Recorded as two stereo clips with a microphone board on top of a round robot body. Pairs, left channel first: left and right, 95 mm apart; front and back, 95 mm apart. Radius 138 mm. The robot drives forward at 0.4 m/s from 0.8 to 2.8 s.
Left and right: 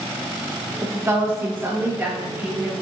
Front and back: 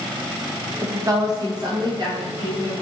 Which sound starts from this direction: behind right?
A woman speaking, at 0.8 s.